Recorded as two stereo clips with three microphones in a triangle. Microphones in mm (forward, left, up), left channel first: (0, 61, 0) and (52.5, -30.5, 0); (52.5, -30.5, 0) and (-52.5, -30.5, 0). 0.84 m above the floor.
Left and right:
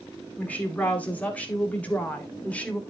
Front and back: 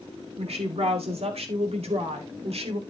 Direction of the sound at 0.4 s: 165° right.